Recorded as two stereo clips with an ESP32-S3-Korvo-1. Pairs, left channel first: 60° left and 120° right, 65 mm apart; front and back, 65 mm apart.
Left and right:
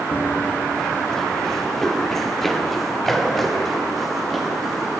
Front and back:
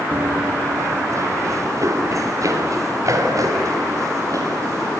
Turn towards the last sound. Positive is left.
turn(degrees=145)